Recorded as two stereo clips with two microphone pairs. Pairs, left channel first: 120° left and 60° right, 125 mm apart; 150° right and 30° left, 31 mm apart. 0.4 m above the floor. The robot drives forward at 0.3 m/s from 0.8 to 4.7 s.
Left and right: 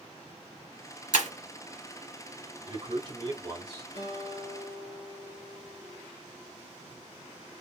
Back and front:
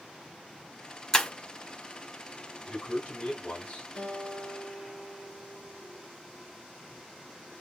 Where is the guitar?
95° right, 2.5 m; by 6.1 s 100° right, 2.5 m.